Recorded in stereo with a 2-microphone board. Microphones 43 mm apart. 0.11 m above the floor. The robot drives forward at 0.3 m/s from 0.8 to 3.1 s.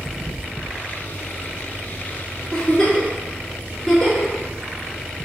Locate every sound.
2.5 s a giggle: 10° left (ahead or behind), 1.0 m